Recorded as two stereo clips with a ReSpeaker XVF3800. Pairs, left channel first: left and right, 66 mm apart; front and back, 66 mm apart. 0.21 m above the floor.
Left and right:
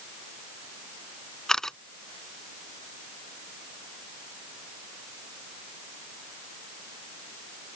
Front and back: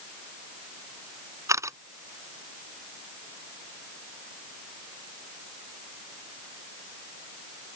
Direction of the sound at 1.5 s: 170° left.